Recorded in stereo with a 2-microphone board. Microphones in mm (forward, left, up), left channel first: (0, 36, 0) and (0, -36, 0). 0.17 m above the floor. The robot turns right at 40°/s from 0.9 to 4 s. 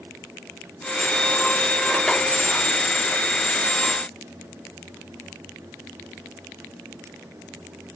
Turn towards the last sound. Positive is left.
No sound to turn to.